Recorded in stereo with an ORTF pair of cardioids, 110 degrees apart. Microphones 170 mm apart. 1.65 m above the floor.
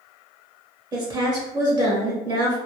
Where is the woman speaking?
25° right, 1.0 m.